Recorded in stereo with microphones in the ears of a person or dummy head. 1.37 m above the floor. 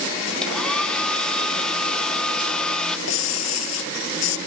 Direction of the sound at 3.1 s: 90° left.